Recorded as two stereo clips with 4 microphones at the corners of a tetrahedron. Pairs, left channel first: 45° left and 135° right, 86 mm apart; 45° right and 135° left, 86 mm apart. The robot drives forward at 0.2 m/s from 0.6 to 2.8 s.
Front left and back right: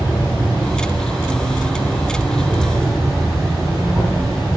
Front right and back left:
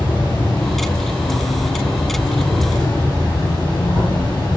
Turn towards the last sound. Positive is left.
turn(degrees=-40)